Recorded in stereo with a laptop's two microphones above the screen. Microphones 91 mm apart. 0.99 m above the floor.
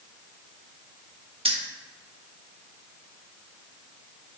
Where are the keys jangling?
80° right, 1.2 m.